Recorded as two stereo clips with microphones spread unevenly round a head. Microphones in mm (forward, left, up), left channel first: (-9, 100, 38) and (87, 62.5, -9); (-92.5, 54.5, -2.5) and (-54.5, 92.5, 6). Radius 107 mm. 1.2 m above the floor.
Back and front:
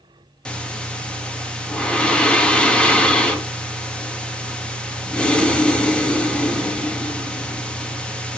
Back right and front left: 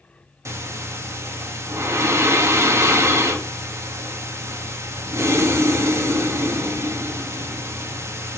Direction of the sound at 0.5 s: 75° left.